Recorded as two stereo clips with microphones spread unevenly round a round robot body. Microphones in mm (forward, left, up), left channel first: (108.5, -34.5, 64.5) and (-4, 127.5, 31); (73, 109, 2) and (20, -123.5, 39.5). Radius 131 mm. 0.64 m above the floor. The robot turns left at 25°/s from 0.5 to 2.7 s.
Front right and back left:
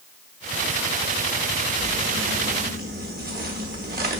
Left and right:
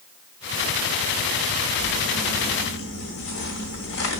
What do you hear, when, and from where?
1.8 s crumpling: 105° left, 1.0 m; by 4.2 s 85° left, 1.0 m